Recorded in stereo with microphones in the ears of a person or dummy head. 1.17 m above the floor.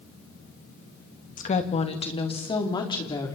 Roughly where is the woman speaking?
Left.